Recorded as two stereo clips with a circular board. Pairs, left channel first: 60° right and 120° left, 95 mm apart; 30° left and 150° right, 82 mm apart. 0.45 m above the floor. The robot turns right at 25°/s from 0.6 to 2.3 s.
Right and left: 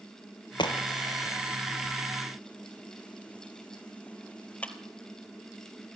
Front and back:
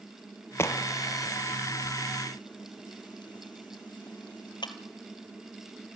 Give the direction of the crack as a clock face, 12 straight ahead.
1 o'clock.